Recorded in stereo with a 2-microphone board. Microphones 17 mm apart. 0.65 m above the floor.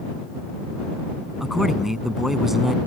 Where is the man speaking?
20° right (ahead or behind).